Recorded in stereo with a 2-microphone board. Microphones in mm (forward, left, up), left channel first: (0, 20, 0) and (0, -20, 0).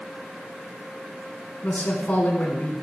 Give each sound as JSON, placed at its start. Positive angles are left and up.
{"t": 1.6, "sound": "a man speaking", "side_deg": 45, "distance_m": 2.0}